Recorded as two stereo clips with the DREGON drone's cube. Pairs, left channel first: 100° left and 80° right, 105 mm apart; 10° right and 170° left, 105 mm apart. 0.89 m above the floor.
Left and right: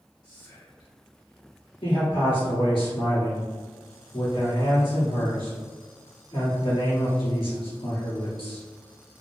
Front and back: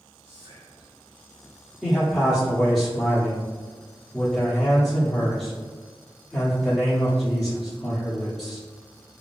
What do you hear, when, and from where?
0.2 s whispering: 145° left, 1.5 m
1.8 s a man speaking: 80° left, 1.8 m